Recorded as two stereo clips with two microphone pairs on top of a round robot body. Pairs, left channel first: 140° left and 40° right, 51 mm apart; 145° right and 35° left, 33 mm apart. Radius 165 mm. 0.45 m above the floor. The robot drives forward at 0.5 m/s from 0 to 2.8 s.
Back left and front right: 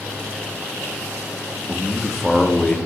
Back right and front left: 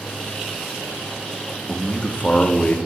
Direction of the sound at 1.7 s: 120° right.